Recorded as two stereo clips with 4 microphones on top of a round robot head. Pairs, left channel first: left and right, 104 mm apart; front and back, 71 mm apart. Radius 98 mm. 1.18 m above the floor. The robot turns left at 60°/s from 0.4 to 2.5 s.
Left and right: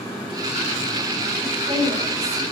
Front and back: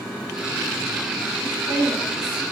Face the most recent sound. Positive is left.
turn(degrees=-75)